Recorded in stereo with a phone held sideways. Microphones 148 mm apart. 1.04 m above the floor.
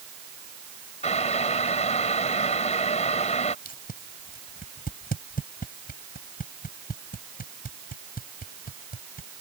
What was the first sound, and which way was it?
Boiling, 50° left (ahead or behind).